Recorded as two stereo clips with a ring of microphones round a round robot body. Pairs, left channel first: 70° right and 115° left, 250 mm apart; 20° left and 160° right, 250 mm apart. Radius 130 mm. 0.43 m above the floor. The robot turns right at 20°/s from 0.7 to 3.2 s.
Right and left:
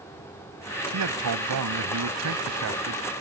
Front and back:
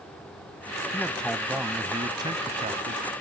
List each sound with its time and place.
0.9 s a man speaking: 105° left; by 3.0 s 145° left